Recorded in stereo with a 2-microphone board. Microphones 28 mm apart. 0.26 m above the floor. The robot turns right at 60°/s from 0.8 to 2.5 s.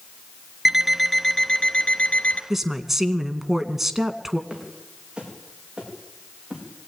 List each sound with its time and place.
0.7 s an alarm clock: straight ahead, 1.3 m; by 2.4 s 95° left, 1.3 m
2.5 s a woman speaking: 10° right (ahead or behind), 2 m
4.5 s footsteps: 30° right (ahead or behind), 9 m; by 6.6 s 35° right (ahead or behind), 10 m